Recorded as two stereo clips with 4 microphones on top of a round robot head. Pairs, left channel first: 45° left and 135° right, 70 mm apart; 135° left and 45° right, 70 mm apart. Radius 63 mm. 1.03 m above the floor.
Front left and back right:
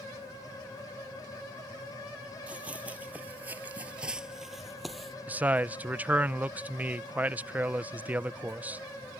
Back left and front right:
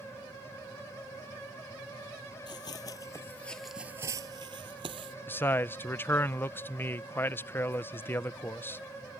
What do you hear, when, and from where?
2.5 s running footsteps: 150° left; by 5.2 s 45° right
5.3 s a man speaking: 170° left